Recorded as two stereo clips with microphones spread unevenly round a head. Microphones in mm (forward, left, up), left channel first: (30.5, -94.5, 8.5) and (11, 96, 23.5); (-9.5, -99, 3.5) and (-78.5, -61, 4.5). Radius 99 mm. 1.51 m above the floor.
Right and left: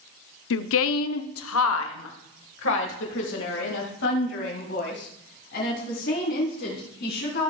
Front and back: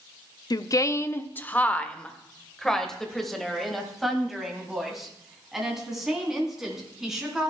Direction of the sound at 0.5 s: 65° right.